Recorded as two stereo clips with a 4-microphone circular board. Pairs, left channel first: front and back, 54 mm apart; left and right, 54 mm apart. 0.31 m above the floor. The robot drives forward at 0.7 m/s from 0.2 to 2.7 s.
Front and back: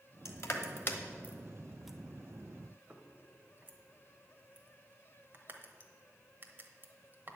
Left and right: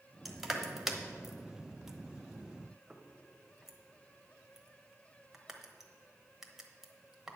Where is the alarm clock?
I don't hear an alarm clock.